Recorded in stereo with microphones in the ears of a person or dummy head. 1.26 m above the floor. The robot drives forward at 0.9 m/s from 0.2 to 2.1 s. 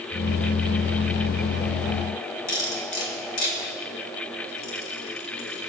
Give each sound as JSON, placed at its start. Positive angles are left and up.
{"t": 2.5, "sound": "cutlery clinking", "side_deg": 70, "distance_m": 2.5}